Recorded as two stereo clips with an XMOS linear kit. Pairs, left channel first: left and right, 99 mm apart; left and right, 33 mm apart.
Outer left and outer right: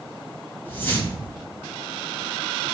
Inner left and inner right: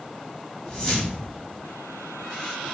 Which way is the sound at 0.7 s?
20° left (ahead or behind).